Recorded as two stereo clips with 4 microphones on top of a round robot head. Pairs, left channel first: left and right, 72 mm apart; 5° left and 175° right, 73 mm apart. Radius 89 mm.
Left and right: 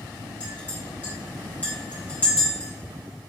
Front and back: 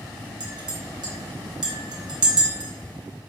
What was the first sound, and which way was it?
A clink, 165° left.